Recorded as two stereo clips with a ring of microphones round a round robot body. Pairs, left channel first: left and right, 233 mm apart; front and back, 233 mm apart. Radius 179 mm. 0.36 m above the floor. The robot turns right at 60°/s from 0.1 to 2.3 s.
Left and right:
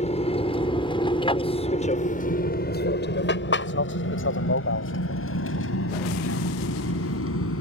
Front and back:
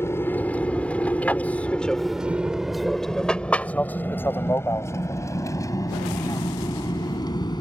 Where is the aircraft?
70° left.